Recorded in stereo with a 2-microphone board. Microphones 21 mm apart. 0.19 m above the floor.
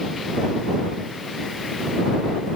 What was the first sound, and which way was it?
Only background noise.